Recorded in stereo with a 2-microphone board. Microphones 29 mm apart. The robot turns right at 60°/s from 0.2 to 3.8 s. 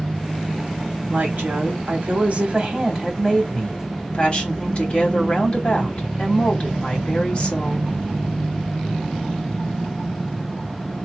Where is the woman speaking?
120° right, 3.5 m; by 7.9 s 40° left, 3.5 m.